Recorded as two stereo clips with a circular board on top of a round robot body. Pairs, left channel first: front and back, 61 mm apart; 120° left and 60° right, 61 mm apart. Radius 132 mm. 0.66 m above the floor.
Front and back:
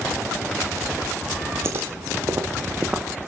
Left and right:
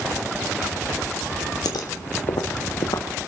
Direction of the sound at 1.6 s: 130° left.